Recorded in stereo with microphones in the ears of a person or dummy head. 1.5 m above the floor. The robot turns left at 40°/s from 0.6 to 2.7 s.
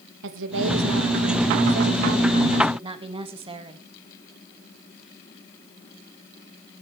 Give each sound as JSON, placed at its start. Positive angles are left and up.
{"t": 0.2, "sound": "a woman speaking", "azimuth_deg": -70, "distance_m": 2.0}